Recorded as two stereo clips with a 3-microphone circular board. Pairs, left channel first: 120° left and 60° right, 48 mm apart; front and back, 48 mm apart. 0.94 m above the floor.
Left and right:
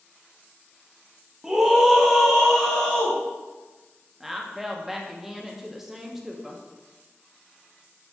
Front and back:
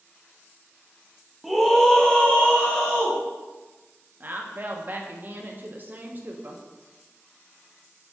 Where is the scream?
90° right, 0.6 m; by 3.2 s 35° left, 1.0 m.